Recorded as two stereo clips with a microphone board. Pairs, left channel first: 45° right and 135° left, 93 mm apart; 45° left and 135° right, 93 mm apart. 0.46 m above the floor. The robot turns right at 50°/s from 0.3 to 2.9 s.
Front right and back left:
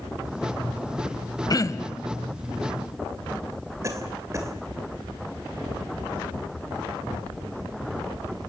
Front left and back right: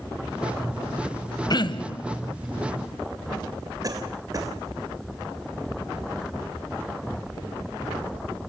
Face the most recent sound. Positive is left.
turn(degrees=-175)